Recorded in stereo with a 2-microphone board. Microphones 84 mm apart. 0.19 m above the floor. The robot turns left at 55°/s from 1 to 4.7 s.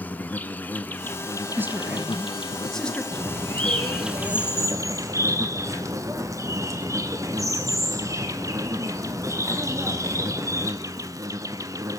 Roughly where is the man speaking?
Behind right.